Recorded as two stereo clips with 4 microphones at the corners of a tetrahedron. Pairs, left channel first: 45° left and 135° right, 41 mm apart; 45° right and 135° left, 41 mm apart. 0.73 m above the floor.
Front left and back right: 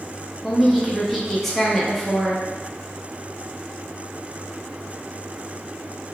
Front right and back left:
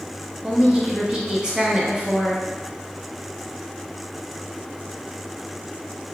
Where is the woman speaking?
135° left, 0.7 m.